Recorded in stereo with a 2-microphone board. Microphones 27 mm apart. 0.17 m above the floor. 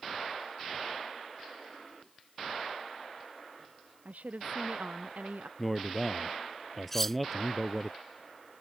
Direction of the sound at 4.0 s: 85° right.